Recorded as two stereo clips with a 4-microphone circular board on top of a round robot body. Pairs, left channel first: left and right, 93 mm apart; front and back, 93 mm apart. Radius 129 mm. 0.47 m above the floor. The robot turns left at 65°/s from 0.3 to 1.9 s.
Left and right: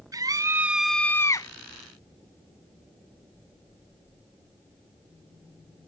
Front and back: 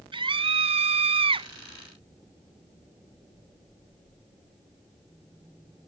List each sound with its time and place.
0.1 s a scream: 145° right; by 1.5 s 140° left